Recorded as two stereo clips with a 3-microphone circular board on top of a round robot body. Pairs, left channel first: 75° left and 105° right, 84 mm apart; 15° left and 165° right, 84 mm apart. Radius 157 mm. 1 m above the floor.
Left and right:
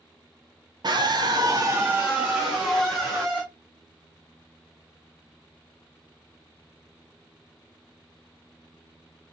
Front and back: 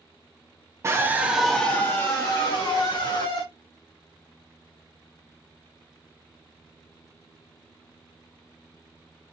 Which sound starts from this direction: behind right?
A scream, at 0.8 s.